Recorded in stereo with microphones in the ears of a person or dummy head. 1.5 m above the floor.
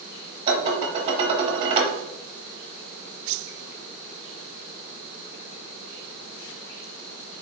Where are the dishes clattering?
30° right (ahead or behind), 0.9 m.